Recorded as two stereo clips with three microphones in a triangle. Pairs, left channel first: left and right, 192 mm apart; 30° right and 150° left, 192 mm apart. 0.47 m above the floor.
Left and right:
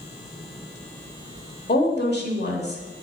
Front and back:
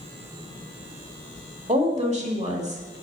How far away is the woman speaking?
About 1.4 m.